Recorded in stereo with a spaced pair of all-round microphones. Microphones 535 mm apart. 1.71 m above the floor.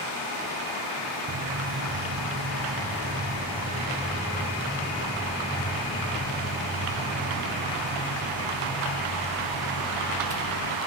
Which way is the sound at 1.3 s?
50° right (ahead or behind).